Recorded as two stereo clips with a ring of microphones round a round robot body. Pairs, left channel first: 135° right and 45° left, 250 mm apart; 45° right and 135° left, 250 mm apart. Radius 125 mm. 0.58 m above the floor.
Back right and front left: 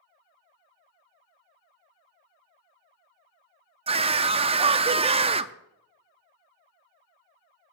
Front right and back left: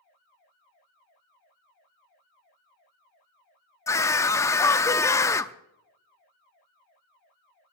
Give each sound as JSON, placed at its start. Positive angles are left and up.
{"t": 3.9, "sound": "a scream", "azimuth_deg": 15, "distance_m": 0.6}